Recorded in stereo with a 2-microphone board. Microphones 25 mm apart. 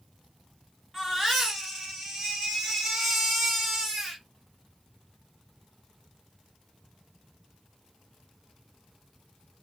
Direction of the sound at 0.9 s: Centre (ahead or behind).